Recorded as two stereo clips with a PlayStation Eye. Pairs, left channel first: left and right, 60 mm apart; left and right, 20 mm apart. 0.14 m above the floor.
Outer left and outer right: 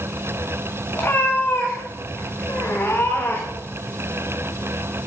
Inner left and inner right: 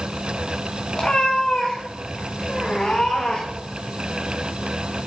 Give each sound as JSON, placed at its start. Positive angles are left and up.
{"t": 0.9, "sound": "a cat meowing", "side_deg": 35, "distance_m": 5.0}